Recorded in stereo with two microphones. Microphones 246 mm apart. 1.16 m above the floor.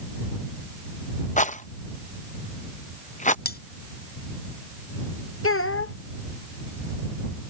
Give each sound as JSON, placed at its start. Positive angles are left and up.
{"t": 1.4, "sound": "a rattle", "side_deg": 30}
{"t": 3.5, "sound": "cutlery clinking", "side_deg": 40}
{"t": 5.4, "sound": "a child speaking", "side_deg": 60}